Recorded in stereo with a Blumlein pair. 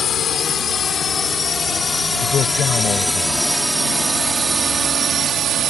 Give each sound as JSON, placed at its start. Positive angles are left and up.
{"t": 0.0, "sound": "a drone", "azimuth_deg": 25}
{"t": 2.2, "sound": "a man speaking", "azimuth_deg": 25}